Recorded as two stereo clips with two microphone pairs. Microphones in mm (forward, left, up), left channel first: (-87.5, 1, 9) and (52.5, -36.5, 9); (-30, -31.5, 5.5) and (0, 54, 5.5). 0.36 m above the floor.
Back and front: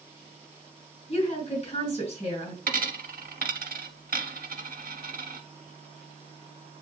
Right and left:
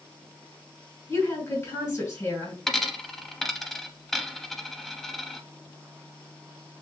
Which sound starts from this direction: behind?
A woman speaking, at 1.1 s.